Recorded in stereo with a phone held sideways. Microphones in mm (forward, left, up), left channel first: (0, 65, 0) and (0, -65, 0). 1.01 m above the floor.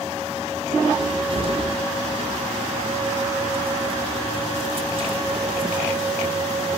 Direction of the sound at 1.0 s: 45° right (ahead or behind).